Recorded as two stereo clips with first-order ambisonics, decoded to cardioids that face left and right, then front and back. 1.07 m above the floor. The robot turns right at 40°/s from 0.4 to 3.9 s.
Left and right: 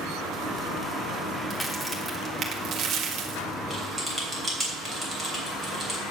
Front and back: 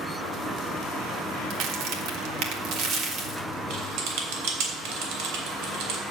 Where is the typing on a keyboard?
175° right, 3 m; by 6.0 s 165° right, 3 m.